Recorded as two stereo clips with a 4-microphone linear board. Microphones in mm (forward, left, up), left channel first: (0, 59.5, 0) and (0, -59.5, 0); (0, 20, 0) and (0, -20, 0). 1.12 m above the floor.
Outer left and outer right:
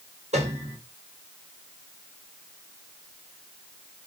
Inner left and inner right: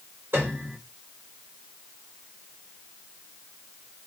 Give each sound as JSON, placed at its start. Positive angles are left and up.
{"t": 0.3, "sound": "a piano", "side_deg": -70, "distance_m": 4.0}